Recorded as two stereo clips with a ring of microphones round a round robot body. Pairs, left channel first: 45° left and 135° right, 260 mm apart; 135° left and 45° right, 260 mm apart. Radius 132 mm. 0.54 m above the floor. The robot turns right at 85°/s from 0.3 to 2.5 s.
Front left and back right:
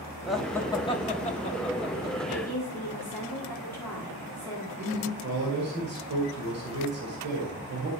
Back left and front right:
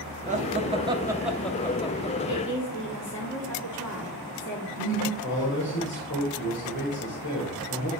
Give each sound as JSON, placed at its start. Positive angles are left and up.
{"t": 0.3, "sound": "laughter", "azimuth_deg": -50, "distance_m": 0.9}
{"t": 2.3, "sound": "a woman speaking", "azimuth_deg": 105, "distance_m": 1.7}
{"t": 4.8, "sound": "a man speaking", "azimuth_deg": 180, "distance_m": 2.5}